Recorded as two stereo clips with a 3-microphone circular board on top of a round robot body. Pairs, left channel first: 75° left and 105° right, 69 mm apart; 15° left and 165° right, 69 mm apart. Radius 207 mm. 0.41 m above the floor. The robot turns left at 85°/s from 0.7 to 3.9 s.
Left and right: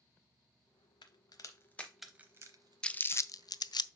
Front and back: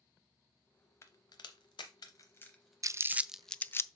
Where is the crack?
70° left, 0.6 m; by 3.8 s 170° right, 0.6 m.